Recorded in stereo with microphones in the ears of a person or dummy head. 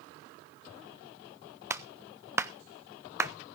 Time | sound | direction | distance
1.7 | a clap | 15° right (ahead or behind) | 0.6 m